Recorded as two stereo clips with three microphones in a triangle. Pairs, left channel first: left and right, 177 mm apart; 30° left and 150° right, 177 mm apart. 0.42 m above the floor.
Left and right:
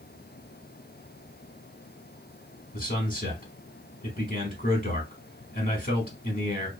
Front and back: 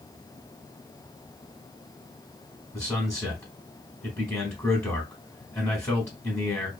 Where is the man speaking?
95° left, 1.0 m.